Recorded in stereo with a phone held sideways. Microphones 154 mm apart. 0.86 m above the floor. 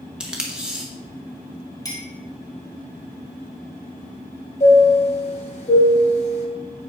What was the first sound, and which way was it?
Tape being pulled, 5° right (ahead or behind).